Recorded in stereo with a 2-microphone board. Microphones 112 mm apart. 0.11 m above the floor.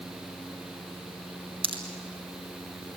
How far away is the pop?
About 3 m.